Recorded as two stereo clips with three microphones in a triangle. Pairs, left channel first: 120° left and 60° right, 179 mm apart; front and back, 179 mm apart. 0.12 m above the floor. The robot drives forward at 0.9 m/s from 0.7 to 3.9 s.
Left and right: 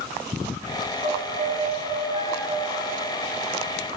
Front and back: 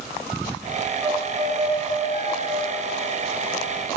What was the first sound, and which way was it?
A violin, 110° right.